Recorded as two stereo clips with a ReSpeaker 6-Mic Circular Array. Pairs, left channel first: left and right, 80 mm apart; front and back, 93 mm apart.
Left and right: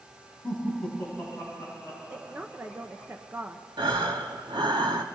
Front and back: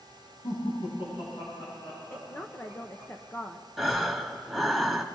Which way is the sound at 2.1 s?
40° right.